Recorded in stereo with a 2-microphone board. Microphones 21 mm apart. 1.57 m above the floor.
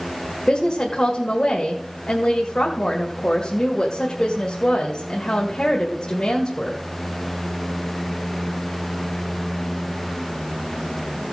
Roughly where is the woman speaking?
Left.